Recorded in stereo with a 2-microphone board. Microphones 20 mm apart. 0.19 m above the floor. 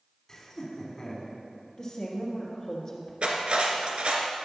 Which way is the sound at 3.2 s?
65° right (ahead or behind).